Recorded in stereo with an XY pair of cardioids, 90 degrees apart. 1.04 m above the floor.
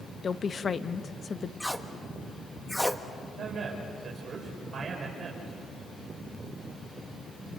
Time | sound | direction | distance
0.2 | a woman speaking | 45° left | 1.0 m
1.6 | tape being pulled | 5° left | 1.4 m
3.4 | a man speaking | 50° right | 5 m